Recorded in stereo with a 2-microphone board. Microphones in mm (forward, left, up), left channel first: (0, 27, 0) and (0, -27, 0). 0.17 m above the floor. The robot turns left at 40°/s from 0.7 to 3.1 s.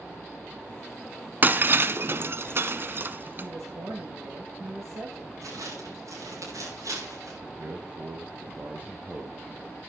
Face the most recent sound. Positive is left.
turn(degrees=-35)  # may be behind; listen again after turning